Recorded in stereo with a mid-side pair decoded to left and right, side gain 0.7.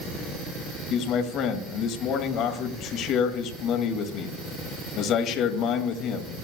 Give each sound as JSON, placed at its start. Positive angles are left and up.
{"t": 0.9, "sound": "a man speaking", "azimuth_deg": 55, "distance_m": 2.0}